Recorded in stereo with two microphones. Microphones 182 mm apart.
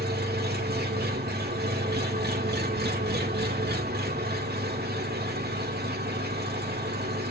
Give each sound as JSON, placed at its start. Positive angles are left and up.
{"t": 0.0, "sound": "an engine running", "side_deg": -70, "distance_m": 2.0}